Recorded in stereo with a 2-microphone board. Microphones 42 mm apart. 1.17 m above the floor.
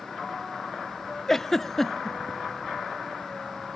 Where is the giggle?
10° left (ahead or behind), 0.6 m.